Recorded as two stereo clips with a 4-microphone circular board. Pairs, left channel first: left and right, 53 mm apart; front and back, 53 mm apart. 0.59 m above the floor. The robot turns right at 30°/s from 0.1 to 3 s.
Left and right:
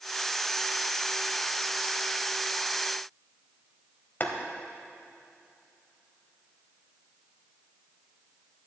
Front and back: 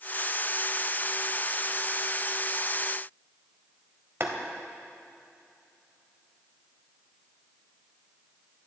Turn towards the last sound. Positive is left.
turn(degrees=140)